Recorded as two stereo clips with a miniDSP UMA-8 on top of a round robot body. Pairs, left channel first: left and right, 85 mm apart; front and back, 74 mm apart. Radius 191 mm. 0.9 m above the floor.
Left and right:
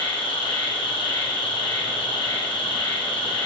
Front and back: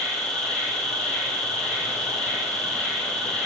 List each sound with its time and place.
0.0 s an insect: 80° left, 1.2 m